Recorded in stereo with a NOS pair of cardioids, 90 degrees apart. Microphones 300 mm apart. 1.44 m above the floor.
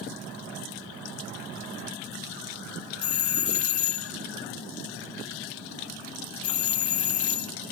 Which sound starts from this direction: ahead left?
A doorbell, at 3.0 s.